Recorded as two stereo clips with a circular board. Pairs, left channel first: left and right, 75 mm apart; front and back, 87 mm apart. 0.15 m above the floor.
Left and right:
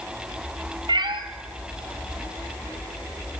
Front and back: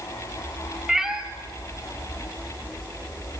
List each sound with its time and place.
0.9 s a cat meowing: 95° right, 1.1 m